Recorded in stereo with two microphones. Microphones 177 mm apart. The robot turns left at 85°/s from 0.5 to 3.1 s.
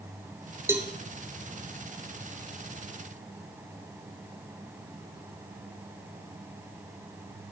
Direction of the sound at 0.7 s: 15° right (ahead or behind).